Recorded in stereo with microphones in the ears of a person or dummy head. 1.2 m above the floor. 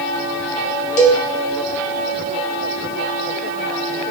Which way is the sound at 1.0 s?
40° left (ahead or behind).